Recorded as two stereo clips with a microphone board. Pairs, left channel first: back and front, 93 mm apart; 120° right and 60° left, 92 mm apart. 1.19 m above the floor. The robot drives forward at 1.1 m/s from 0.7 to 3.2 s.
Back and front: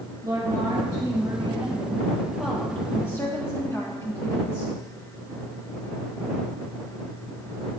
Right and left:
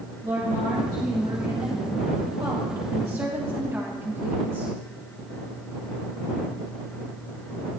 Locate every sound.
0.2 s a woman speaking: 40° left, 2.5 m; by 4.8 s 125° left, 1.8 m